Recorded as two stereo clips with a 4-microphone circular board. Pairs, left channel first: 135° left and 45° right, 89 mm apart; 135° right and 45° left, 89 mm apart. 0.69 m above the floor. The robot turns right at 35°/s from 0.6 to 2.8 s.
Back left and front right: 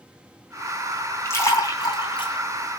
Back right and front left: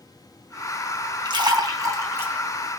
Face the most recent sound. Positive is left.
turn(degrees=130)